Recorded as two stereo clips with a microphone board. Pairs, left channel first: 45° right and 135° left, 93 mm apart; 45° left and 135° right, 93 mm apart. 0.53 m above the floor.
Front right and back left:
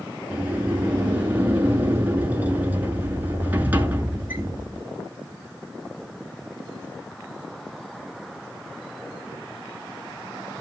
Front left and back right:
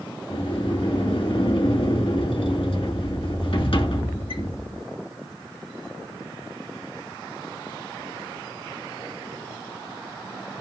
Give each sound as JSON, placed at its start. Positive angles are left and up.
{"t": 0.3, "sound": "a sliding door", "azimuth_deg": 65, "distance_m": 2.5}